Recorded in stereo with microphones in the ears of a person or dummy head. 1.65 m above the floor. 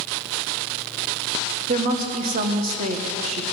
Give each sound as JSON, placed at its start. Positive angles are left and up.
{"t": 1.7, "sound": "a woman speaking", "side_deg": -40, "distance_m": 1.3}